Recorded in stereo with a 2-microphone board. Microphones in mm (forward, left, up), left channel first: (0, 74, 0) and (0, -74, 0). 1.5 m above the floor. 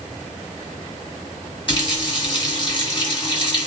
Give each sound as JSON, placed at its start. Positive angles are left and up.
{"t": 1.7, "sound": "a running tap", "side_deg": 40, "distance_m": 1.6}